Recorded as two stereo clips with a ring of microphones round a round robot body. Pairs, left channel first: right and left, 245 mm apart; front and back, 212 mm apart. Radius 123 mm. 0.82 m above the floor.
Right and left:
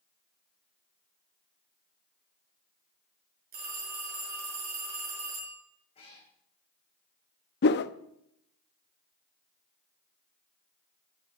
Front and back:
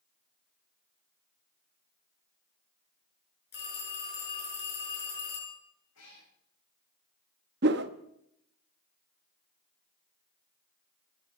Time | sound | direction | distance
3.5 | a phone ringing | 35° left | 7 m
6.0 | a cat meowing | 25° right | 4.5 m
7.6 | a whoosh | 135° right | 0.6 m